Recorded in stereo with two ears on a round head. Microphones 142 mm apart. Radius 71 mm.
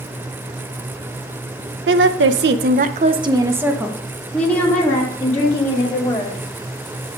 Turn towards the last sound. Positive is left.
turn(degrees=25)  # may be behind; listen again after turning